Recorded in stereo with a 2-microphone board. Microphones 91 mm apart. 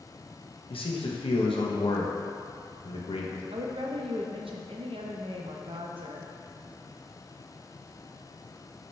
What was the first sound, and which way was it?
A man speaking, 80° left.